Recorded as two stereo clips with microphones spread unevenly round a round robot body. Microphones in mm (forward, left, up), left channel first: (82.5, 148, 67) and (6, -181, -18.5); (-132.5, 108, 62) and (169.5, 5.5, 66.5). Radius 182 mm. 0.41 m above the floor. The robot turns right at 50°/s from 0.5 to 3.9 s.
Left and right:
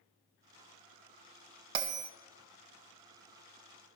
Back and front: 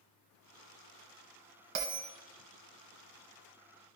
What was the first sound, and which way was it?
A bell, 75° right.